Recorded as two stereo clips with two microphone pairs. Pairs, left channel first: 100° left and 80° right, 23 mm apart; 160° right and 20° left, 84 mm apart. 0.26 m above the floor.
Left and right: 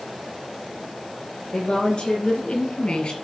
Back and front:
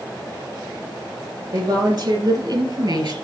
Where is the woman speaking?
50° left, 5.5 m.